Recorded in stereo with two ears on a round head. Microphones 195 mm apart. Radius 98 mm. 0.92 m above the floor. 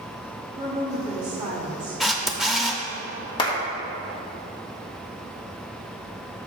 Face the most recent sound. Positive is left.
turn(degrees=20)  # may be behind; listen again after turning